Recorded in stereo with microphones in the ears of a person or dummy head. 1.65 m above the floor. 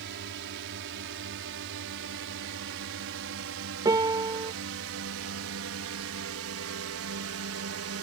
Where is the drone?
65° right (ahead or behind); by 8.0 s 70° right (ahead or behind).